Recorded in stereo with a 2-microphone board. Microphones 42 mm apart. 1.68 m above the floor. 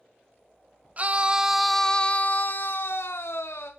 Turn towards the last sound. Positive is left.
turn(degrees=75)  # may be behind; listen again after turning